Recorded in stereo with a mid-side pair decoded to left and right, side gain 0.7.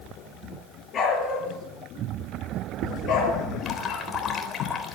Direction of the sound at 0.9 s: 35° left.